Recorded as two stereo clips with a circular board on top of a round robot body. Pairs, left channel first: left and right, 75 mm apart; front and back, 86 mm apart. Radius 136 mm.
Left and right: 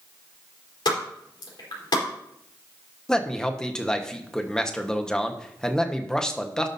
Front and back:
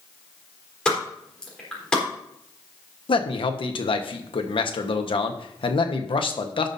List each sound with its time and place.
0.8 s a pop: 80° left, 4 m
3.1 s a man speaking: 10° left, 1.3 m